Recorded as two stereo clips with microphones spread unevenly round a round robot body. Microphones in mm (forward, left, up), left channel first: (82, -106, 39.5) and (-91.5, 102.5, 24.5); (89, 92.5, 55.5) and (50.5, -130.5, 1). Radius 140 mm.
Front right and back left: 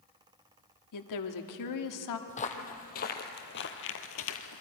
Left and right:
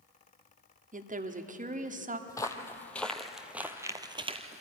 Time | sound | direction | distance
0.9 | a woman speaking | 50° right | 1.6 m
2.3 | footsteps | 15° left | 1.7 m